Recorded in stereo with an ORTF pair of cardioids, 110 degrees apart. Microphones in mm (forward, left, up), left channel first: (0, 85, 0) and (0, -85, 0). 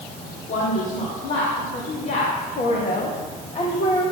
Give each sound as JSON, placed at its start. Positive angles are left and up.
{"t": 0.5, "sound": "a woman speaking", "azimuth_deg": 55, "distance_m": 3.5}